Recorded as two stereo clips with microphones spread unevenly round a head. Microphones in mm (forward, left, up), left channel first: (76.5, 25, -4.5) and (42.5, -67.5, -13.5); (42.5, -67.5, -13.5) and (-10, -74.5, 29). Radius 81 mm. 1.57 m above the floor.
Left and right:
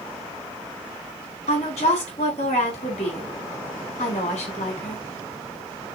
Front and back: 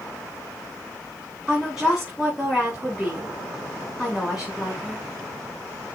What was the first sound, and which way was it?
A woman speaking, 100° left.